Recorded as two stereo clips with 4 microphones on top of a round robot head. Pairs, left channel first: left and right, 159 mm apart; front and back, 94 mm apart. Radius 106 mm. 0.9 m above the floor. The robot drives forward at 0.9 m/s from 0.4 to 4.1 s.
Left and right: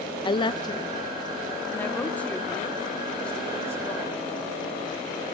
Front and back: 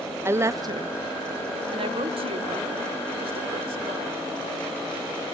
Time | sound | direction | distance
0.2 | a woman speaking | 130° left | 0.6 m